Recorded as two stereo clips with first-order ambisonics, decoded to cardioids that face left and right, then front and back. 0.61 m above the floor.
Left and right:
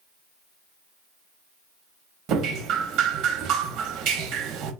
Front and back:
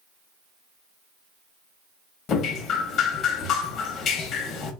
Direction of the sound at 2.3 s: 50° right.